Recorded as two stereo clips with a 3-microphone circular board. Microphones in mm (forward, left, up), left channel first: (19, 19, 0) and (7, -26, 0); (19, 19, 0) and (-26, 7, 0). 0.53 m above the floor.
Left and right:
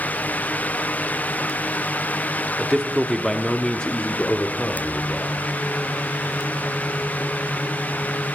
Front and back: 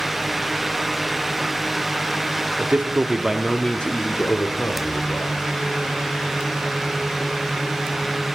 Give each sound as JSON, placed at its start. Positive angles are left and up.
{"t": 2.6, "sound": "a man speaking", "azimuth_deg": 175, "distance_m": 0.8}